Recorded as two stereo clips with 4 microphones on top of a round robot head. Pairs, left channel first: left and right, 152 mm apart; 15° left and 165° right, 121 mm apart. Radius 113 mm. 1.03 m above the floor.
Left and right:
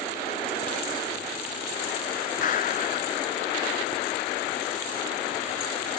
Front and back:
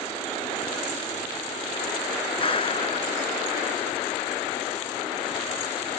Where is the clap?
55° left.